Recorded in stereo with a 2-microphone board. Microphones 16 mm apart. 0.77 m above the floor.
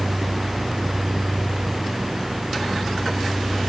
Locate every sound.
Only background noise.